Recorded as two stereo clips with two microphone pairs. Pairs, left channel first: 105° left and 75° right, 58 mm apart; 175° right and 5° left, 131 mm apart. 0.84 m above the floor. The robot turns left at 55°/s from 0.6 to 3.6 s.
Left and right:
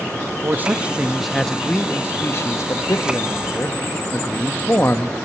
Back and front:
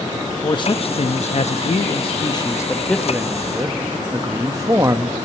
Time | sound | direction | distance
0.4 | a man speaking | 130° right | 0.8 m